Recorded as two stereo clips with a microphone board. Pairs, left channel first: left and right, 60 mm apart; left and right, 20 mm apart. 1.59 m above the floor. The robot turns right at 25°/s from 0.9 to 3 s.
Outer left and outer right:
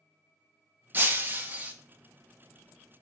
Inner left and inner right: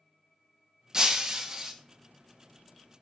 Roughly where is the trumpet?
I don't hear a trumpet.